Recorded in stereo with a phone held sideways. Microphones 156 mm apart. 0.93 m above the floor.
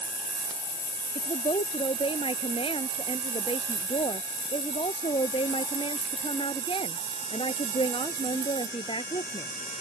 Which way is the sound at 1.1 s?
35° left (ahead or behind).